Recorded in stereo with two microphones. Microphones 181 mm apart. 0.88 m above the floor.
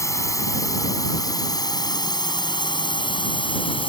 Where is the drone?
15° left (ahead or behind); by 3.9 s 30° left (ahead or behind).